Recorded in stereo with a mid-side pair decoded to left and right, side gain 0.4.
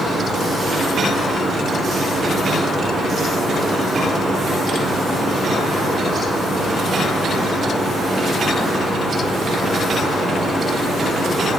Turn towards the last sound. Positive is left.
turn(degrees=-20)